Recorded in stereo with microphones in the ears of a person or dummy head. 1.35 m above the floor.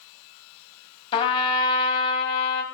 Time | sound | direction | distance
1.1 | a trumpet | 30° left (ahead or behind) | 1.8 m